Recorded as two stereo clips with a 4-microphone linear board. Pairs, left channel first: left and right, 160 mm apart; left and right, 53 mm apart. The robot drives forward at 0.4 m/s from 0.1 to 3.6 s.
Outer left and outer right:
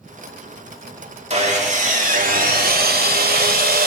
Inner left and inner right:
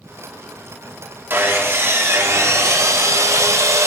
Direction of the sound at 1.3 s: 45° right (ahead or behind).